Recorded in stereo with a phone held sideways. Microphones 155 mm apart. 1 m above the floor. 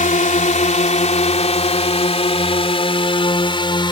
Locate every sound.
0.0 s a drone: 55° left (ahead or behind); by 3.9 s 30° left (ahead or behind)